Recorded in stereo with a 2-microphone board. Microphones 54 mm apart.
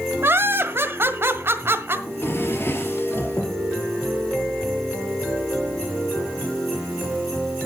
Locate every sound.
0.2 s laughter: 45° right (ahead or behind), 1.5 m
2.1 s a drawer: 45° left (ahead or behind), 3 m